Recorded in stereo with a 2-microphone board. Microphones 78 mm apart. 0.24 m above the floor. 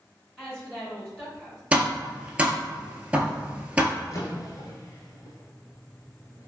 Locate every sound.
0.4 s a woman speaking: 10° left (ahead or behind), 1.8 m
1.7 s tapping: 20° right (ahead or behind), 0.6 m
4.0 s a drawer: 45° left (ahead or behind), 1.0 m